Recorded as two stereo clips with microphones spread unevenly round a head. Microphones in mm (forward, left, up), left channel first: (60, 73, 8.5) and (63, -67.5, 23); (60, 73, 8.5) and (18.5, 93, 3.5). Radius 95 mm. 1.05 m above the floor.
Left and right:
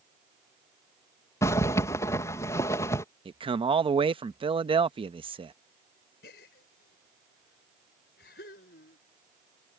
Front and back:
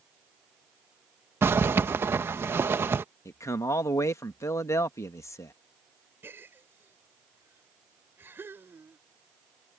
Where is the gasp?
120° left.